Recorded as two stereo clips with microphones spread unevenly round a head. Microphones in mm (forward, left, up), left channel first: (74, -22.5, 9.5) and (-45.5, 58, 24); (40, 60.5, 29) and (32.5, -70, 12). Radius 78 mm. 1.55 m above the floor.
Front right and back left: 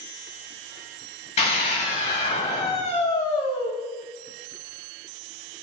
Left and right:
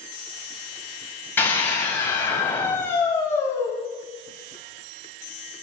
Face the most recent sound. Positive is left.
turn(degrees=15)